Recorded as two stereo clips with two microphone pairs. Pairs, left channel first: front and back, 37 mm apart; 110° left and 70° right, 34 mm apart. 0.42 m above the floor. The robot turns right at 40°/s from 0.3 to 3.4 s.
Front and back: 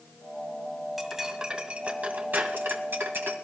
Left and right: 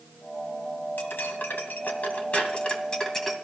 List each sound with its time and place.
1.0 s cutlery clinking: 100° left, 1.8 m; by 3.4 s 165° right, 1.8 m